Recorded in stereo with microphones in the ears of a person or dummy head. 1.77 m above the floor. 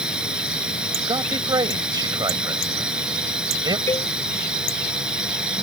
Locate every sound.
0.0 s a drone: 10° right (ahead or behind)
1.1 s a man speaking: 20° right (ahead or behind)
3.9 s a cowbell: 20° left (ahead or behind)